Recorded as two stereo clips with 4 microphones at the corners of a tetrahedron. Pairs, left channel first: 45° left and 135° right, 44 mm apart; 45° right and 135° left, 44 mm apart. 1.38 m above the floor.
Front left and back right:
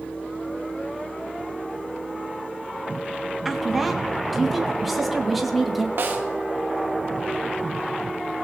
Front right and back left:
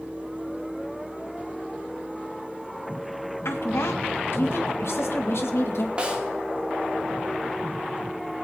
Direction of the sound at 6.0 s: 165° right.